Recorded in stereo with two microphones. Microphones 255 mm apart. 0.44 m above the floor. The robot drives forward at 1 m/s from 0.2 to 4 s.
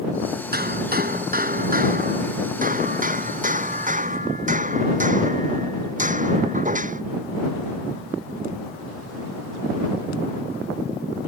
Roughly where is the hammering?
Right.